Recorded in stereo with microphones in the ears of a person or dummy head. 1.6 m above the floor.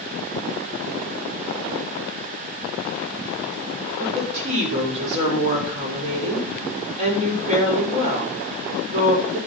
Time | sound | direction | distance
4.0 | a woman speaking | 35° right (ahead or behind) | 6 m